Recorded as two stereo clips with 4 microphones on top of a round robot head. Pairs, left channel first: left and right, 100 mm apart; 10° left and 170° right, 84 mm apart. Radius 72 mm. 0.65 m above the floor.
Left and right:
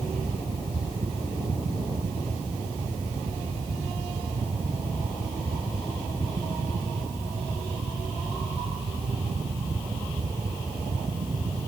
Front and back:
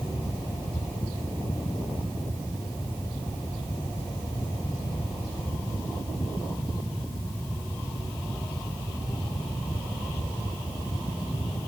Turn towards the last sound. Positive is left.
No sound to turn to.